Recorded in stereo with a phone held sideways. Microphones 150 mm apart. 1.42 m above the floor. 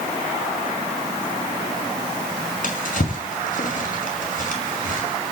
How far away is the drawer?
About 6 m.